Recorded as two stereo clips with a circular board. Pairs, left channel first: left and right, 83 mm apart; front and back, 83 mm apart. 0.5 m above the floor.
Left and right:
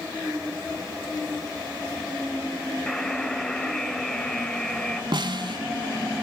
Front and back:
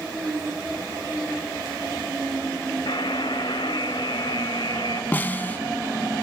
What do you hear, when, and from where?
2.9 s a buzzer: 5° left, 1.5 m
5.1 s a snare drum: 65° right, 0.8 m